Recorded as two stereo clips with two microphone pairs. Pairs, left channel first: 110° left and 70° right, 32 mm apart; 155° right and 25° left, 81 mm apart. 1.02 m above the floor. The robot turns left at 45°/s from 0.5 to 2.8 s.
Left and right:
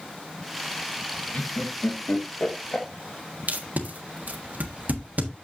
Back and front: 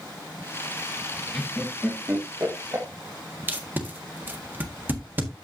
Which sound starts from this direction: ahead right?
Tape being pulled, at 3.5 s.